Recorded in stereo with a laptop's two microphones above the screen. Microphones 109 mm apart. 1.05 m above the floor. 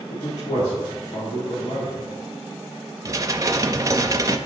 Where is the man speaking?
85° left, 2.0 m.